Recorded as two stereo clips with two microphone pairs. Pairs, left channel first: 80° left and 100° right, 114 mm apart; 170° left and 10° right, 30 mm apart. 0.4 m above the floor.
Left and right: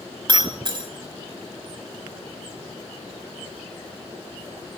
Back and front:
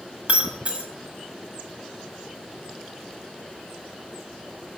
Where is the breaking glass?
55° right, 1.0 m.